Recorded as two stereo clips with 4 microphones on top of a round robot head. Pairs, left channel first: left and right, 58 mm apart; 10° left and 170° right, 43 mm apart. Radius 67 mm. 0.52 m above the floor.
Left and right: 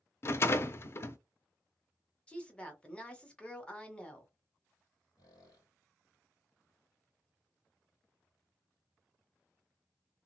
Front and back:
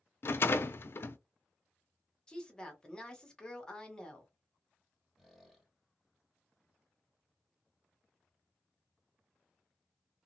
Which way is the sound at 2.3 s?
55° left.